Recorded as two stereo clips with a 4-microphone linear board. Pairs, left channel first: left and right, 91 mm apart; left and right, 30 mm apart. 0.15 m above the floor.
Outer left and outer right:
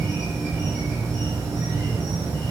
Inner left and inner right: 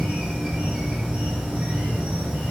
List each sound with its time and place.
0.0 s an insect: 40° right (ahead or behind), 1.3 m